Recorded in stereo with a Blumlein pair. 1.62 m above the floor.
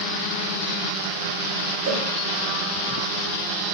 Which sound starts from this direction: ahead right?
A cowbell, at 1.9 s.